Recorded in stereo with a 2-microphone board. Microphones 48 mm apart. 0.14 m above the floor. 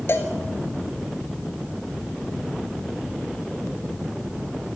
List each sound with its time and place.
0.1 s a cowbell: 55° left (ahead or behind), 2 m